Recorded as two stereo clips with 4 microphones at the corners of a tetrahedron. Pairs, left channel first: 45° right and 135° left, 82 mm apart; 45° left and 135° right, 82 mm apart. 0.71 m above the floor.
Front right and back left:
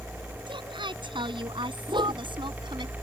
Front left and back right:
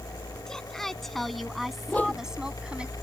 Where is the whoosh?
115° left.